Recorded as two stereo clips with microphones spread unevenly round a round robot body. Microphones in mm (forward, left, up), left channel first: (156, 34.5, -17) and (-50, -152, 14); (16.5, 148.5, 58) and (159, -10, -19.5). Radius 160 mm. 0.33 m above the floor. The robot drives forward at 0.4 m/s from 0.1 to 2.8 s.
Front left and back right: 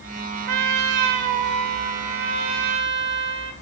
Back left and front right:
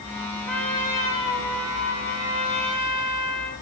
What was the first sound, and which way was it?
A trumpet, 130° right.